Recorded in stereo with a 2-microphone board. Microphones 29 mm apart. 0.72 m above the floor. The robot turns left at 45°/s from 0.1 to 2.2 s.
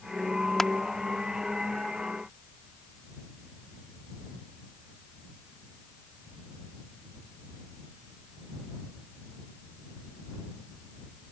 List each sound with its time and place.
0.6 s crushing: 15° left (ahead or behind); by 0.7 s 10° left (ahead or behind)